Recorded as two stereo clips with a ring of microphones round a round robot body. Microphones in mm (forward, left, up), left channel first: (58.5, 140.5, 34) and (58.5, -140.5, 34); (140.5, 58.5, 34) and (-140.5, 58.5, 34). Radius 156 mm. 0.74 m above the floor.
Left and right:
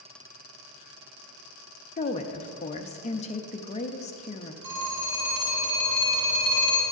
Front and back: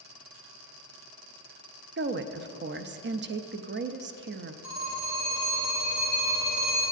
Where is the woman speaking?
145° left, 0.6 m.